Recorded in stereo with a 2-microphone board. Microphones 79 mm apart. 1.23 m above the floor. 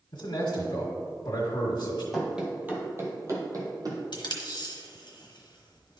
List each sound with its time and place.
0.1 s a man speaking: 75° left (ahead or behind), 1.6 m
2.1 s running footsteps: 5° right (ahead or behind), 1.3 m; by 4.0 s 50° right (ahead or behind), 2.0 m
4.1 s tape being pulled: 70° left (ahead or behind), 1.1 m